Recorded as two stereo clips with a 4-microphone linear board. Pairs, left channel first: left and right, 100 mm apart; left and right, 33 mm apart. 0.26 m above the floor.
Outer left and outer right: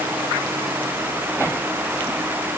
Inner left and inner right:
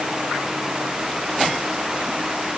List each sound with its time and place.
Only background noise.